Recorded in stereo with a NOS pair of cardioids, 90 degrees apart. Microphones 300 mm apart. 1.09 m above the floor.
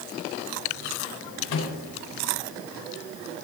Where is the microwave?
65° left, 2.5 m.